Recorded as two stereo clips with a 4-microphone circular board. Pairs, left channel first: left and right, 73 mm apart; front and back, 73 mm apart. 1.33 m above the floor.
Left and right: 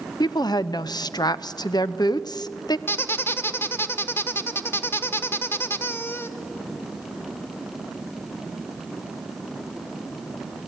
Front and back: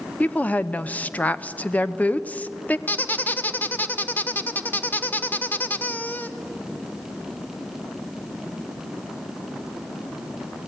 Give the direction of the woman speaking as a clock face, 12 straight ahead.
10 o'clock.